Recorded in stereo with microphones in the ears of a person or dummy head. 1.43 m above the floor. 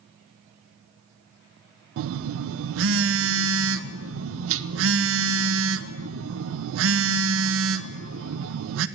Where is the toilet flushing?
No toilet flushing in this recording.